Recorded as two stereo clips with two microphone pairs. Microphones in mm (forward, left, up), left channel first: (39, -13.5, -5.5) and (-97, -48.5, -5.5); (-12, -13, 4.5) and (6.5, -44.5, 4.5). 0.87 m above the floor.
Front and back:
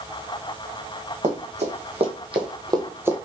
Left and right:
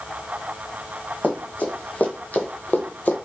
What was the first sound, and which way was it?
Running footsteps, 165° left.